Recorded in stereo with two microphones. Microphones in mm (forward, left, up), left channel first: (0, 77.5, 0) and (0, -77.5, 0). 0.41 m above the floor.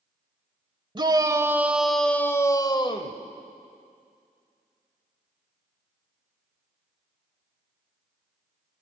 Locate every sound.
0.9 s a shout: 30° right (ahead or behind), 1.4 m; by 3.2 s 40° left (ahead or behind), 1.5 m